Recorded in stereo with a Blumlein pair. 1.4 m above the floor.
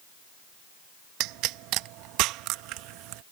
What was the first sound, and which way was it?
A pop, 40° right.